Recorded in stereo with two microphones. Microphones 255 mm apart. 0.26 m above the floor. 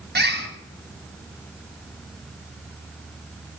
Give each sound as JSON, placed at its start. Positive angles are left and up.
{"t": 0.1, "sound": "a bird", "side_deg": -40, "distance_m": 2.0}